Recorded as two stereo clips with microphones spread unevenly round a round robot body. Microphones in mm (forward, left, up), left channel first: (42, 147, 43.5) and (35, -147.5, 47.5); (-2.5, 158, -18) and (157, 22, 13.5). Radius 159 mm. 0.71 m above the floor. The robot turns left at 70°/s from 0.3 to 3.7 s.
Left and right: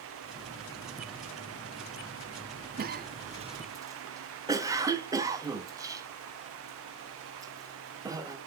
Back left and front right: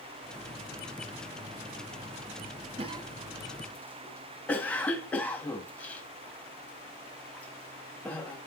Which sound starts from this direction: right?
A cough, at 2.8 s.